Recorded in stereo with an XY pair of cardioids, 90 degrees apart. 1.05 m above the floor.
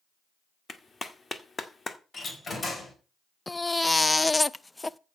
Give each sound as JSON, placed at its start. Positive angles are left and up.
{"t": 0.7, "sound": "a clap", "azimuth_deg": 35, "distance_m": 1.8}
{"t": 2.1, "sound": "a door slam", "azimuth_deg": 40, "distance_m": 4.5}
{"t": 3.5, "sound": "a baby crying", "azimuth_deg": 20, "distance_m": 0.5}